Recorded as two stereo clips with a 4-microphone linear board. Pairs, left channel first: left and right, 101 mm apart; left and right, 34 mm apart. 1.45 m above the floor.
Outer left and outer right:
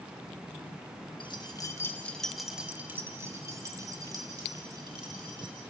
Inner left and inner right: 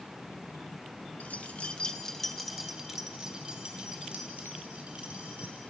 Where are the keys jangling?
55° left (ahead or behind), 1.4 m; by 5.6 s 50° right (ahead or behind), 4 m.